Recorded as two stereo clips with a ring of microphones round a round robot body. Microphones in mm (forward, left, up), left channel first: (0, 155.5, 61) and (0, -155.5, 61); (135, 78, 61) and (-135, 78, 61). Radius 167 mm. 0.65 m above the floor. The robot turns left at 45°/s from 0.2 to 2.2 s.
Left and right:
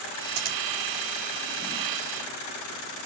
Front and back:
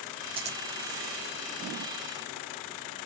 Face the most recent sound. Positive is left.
turn(degrees=170)